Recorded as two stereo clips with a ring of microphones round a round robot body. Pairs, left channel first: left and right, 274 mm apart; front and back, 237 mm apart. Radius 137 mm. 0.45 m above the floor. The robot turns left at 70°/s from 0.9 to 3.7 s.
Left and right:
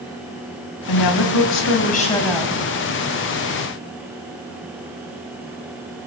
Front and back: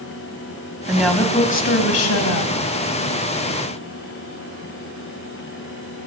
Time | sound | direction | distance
0.9 | a woman speaking | 100° left | 2.5 m